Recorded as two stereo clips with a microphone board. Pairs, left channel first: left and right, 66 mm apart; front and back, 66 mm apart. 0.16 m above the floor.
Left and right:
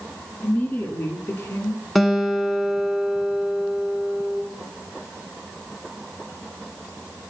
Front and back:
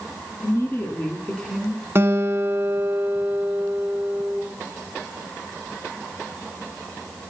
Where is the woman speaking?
30° left, 1.9 m; by 1.8 s 110° left, 1.4 m.